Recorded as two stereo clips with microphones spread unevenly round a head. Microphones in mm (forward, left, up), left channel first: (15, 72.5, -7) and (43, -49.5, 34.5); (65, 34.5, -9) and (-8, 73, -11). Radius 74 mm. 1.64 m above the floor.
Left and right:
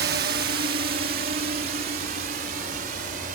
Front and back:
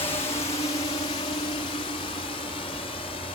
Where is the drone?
80° right; by 3.4 s 65° right.